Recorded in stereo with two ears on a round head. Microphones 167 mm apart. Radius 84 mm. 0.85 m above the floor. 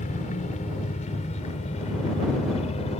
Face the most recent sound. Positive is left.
turn(degrees=35)  # may be behind; listen again after turning